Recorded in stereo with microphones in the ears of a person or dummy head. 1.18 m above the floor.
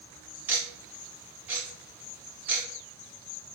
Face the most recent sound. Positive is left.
turn(degrees=-5)  # may be behind; listen again after turning